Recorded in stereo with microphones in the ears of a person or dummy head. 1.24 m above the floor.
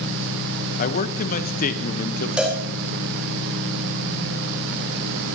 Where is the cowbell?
5° right (ahead or behind), 1.8 m.